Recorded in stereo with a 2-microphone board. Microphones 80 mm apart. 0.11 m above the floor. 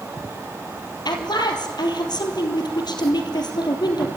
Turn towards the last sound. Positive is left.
turn(degrees=65)  # may be behind; listen again after turning